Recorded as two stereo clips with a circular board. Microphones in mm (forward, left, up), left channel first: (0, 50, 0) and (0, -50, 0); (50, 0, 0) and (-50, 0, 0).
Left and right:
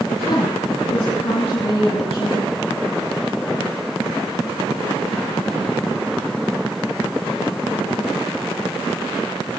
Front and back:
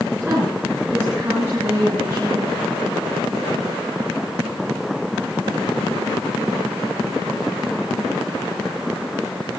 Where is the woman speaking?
120° left, 4.5 m.